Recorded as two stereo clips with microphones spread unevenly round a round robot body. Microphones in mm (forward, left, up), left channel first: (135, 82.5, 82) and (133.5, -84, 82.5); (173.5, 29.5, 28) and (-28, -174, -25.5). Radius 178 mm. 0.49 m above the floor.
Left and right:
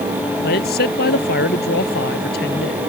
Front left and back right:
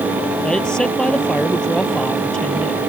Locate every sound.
0.4 s a man speaking: 135° left